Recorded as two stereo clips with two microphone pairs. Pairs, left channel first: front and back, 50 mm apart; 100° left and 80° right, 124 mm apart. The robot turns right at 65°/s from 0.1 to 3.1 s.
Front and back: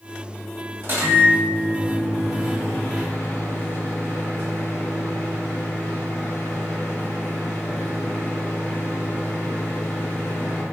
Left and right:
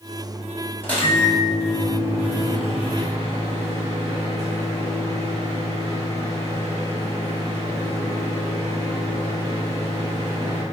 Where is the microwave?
175° left, 1.7 m; by 10.6 s 40° right, 1.7 m.